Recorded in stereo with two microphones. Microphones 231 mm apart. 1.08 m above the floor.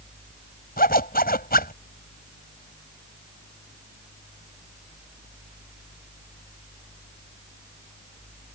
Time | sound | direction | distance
0.8 | a zipper | 40° left (ahead or behind) | ?